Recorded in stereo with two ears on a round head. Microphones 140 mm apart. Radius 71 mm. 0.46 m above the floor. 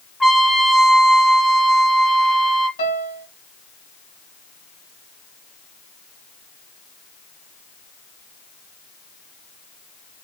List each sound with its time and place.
0.2 s a trumpet: centre (ahead or behind), 1.2 m
2.8 s a piano: 55° left (ahead or behind), 1.8 m